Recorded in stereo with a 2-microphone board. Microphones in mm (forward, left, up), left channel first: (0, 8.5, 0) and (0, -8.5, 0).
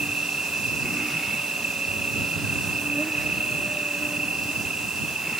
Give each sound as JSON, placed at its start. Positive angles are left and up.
{"t": 0.0, "sound": "an insect", "side_deg": -80}